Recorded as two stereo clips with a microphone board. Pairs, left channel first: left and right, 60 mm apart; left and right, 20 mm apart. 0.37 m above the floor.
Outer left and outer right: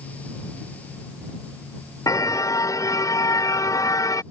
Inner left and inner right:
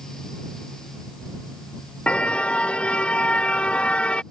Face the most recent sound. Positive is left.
turn(degrees=70)  # may be behind; listen again after turning